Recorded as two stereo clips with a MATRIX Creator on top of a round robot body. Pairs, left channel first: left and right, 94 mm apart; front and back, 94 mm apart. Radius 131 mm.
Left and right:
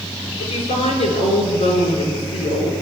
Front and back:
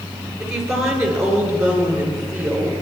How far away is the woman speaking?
About 9.5 m.